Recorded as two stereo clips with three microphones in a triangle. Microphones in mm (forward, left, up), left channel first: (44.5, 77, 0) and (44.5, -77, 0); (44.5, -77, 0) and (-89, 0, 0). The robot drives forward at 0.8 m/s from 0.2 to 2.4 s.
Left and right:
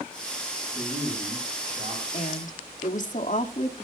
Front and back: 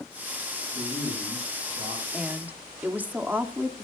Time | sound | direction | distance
0.7 | a man speaking | 150° right | 8.5 m
2.1 | a woman speaking | 65° left | 1.8 m